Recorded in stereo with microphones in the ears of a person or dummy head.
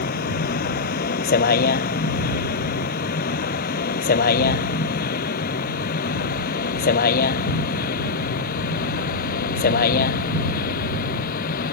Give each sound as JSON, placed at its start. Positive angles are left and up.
{"t": 0.0, "sound": "a vehicle", "side_deg": 50}